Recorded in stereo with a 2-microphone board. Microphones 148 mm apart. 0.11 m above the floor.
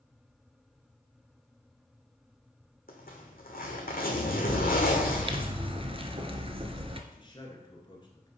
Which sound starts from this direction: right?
A bird, at 4.5 s.